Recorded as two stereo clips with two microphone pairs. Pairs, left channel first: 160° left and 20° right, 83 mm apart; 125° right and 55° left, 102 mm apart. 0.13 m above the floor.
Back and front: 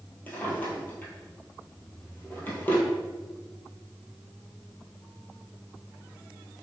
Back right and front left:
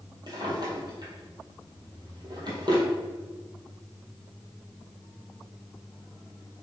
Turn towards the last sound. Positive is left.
turn(degrees=95)